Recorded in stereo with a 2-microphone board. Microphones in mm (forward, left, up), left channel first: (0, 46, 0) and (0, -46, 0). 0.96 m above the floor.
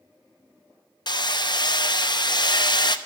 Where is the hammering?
55° left (ahead or behind), 0.8 m.